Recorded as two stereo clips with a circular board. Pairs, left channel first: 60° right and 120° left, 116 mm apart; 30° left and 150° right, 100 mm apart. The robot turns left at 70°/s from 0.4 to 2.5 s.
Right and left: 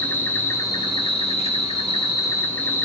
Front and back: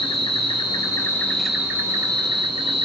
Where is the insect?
15° left, 0.8 m; by 2.9 s 135° right, 0.8 m.